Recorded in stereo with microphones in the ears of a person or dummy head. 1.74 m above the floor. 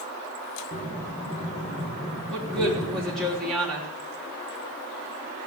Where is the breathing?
35° left (ahead or behind), 2.5 m.